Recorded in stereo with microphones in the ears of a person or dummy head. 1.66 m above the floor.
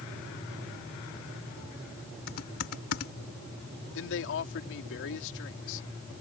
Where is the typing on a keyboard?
55° left (ahead or behind).